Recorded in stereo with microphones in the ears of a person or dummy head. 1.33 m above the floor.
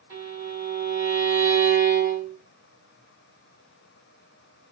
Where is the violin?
20° right (ahead or behind), 1.6 m.